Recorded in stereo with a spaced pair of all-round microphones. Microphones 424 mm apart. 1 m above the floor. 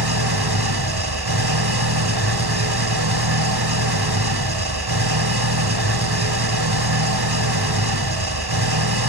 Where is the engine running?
60° right (ahead or behind), 2 m.